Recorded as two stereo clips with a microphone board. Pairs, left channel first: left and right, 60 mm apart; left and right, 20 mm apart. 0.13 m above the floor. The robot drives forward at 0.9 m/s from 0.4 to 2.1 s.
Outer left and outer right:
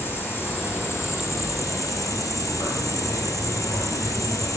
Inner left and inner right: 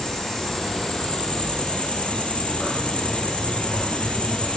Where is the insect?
40° left (ahead or behind), 1.9 m; by 4.6 s 75° left (ahead or behind), 1.3 m.